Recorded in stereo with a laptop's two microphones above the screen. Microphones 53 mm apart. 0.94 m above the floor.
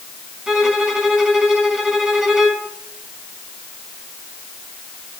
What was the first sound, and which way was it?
A violin, 10° right (ahead or behind).